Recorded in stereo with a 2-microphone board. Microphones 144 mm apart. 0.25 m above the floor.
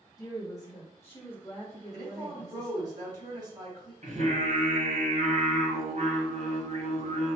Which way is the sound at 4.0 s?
55° right (ahead or behind).